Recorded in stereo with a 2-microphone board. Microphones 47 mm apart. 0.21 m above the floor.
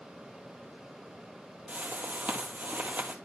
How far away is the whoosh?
About 1.4 m.